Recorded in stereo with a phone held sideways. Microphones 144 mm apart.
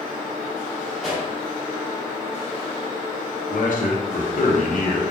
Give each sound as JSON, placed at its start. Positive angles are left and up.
{"t": 1.0, "sound": "a pop", "side_deg": -5, "distance_m": 1.2}
{"t": 3.5, "sound": "a man speaking", "side_deg": 65, "distance_m": 0.7}